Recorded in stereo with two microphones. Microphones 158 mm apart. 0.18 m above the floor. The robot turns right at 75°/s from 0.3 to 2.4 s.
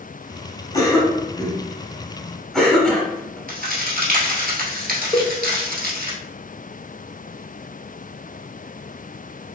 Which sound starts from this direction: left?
A cowbell, at 5.1 s.